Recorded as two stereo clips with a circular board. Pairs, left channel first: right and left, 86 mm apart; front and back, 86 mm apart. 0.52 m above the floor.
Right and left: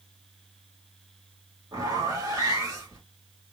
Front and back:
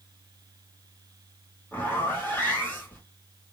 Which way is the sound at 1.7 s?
65° left.